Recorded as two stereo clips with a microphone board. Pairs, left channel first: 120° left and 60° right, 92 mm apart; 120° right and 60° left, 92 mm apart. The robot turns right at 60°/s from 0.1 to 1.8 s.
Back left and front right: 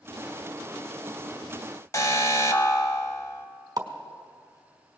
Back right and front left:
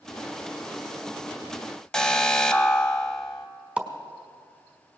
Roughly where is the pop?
Ahead.